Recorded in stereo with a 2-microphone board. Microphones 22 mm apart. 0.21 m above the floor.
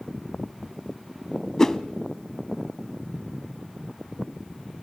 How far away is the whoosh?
About 0.5 m.